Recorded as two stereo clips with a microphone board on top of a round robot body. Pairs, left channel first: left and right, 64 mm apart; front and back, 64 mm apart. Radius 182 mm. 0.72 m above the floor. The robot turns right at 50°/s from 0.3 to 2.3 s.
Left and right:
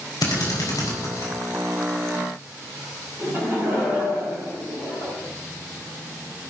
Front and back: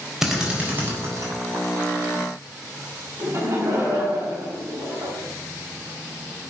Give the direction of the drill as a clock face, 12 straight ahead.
9 o'clock.